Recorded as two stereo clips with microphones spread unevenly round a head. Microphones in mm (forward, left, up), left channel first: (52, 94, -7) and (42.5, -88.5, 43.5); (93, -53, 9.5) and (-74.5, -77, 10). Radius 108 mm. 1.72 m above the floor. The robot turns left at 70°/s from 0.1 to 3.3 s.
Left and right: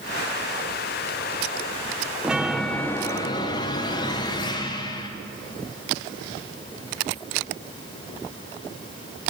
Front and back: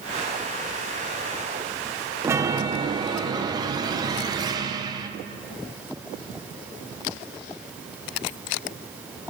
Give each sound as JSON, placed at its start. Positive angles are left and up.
{"t": 2.2, "sound": "a chime", "azimuth_deg": -120, "distance_m": 0.7}